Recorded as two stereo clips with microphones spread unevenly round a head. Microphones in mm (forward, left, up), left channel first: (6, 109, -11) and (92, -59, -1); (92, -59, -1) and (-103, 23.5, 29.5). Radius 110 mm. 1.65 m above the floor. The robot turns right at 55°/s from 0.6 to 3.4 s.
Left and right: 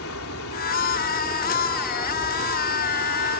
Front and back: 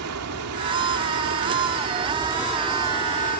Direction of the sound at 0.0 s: 140° left.